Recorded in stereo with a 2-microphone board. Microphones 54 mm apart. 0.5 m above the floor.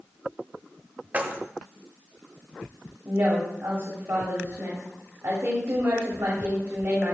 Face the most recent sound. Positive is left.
turn(degrees=-55)  # may be behind; listen again after turning